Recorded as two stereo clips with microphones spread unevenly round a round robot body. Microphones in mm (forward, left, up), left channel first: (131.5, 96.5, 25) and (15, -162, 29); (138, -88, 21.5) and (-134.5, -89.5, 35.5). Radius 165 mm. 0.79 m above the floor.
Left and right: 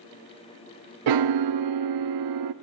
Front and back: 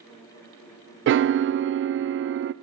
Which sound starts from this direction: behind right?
A piano, at 1.1 s.